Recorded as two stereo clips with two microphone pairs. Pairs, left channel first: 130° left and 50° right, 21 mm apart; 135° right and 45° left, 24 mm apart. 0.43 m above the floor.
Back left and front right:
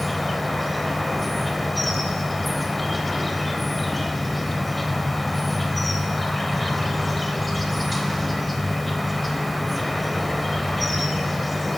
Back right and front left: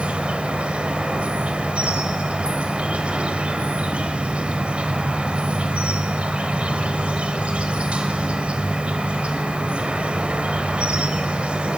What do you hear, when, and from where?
0.0 s an insect: 40° left, 3 m